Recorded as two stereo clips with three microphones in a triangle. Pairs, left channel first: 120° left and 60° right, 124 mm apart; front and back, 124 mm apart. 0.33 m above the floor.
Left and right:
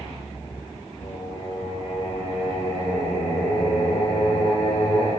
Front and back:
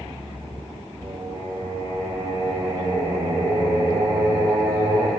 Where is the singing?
120° left, 4.5 m.